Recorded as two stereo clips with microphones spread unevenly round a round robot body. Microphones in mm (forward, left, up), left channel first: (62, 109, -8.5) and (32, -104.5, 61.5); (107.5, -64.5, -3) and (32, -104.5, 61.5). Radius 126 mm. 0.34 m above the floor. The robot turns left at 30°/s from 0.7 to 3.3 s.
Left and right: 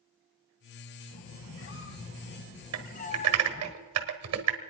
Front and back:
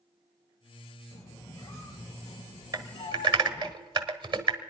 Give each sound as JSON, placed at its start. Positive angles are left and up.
{"t": 1.1, "sound": "a squeak", "azimuth_deg": 90, "distance_m": 1.0}
{"t": 2.7, "sound": "typing on a keyboard", "azimuth_deg": -85, "distance_m": 1.5}